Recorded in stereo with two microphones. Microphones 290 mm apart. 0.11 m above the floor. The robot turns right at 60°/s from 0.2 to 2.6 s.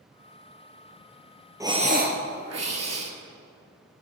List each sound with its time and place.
1.6 s breathing: 170° right, 0.9 m; by 3.1 s 110° right, 0.9 m